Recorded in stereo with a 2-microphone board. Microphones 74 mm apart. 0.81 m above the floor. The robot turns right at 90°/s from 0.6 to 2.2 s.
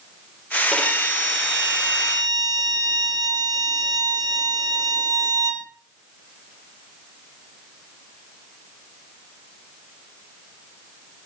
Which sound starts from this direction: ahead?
A violin, at 0.7 s.